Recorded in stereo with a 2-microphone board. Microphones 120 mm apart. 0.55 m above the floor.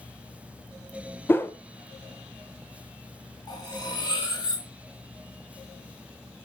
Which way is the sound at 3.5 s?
35° left (ahead or behind).